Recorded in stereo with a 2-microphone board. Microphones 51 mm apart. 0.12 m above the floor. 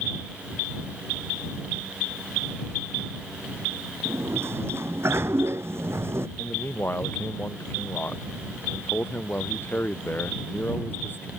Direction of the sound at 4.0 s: 55° right (ahead or behind).